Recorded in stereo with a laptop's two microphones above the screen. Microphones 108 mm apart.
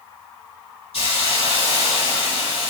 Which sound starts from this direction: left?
A hiss, at 0.9 s.